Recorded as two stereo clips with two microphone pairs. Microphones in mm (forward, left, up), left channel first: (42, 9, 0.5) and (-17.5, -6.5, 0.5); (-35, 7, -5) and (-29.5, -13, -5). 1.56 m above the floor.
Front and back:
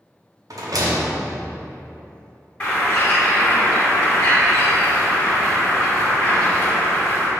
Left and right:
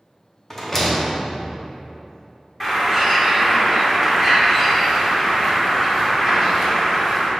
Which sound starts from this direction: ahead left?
A bird, at 2.6 s.